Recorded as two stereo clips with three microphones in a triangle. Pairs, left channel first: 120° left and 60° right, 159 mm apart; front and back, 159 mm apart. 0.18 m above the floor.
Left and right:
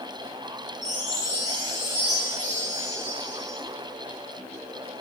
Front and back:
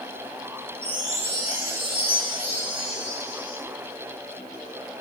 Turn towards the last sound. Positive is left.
turn(degrees=50)